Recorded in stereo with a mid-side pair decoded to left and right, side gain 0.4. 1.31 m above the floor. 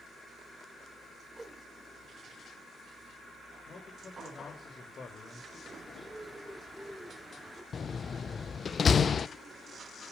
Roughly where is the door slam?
Ahead left.